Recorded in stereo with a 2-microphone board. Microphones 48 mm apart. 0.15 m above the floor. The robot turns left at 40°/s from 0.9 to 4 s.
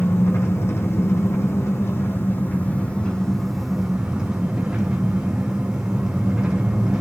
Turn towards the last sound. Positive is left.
turn(degrees=-15)